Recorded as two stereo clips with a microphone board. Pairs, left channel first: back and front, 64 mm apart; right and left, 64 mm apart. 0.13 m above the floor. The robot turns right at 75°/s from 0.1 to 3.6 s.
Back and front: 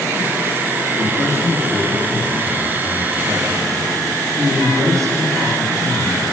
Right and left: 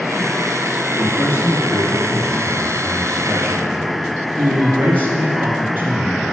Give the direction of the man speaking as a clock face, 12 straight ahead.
6 o'clock.